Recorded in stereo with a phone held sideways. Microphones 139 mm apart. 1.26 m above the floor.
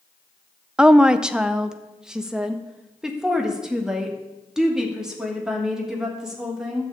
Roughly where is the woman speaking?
Centre.